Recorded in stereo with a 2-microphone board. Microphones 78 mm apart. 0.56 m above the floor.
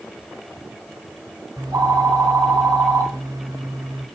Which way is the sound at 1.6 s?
50° right (ahead or behind).